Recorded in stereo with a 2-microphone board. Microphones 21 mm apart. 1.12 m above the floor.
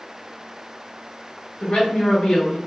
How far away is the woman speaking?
About 1.8 m.